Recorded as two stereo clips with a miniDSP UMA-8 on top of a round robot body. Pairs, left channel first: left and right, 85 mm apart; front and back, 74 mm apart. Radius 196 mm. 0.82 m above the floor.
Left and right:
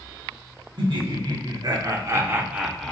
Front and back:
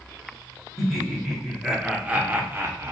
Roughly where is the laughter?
Right.